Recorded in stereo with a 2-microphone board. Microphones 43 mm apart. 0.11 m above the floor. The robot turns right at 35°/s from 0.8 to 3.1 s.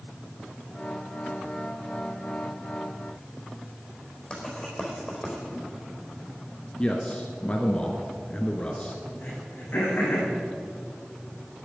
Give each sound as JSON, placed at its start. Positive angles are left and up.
{"t": 4.3, "sound": "writing", "side_deg": 20, "distance_m": 4.5}
{"t": 6.8, "sound": "a man speaking", "side_deg": 25, "distance_m": 1.4}
{"t": 9.2, "sound": "throat clearing", "side_deg": 45, "distance_m": 6.0}